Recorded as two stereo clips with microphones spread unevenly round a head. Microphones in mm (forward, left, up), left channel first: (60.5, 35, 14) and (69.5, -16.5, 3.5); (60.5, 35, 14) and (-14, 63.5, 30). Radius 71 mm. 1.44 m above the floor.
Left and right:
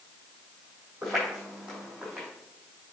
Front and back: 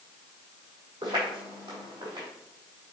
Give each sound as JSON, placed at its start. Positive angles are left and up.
{"t": 1.0, "sound": "footsteps", "azimuth_deg": -175, "distance_m": 3.5}